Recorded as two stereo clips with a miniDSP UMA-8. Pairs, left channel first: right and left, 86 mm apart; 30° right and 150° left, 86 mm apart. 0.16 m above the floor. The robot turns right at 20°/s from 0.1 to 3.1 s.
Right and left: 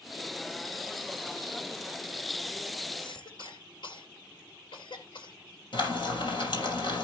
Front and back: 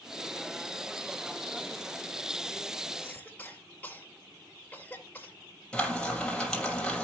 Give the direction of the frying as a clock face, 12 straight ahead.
4 o'clock.